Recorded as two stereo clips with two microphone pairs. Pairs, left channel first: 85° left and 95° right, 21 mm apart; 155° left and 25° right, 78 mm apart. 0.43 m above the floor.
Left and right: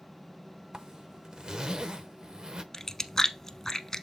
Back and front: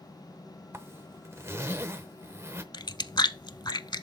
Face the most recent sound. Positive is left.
turn(degrees=145)